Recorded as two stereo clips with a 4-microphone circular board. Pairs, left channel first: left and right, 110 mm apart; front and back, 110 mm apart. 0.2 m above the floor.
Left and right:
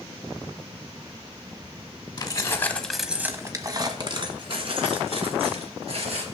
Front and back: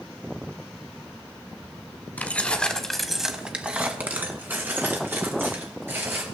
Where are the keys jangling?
65° left, 1.1 m; by 6.2 s 110° right, 3 m.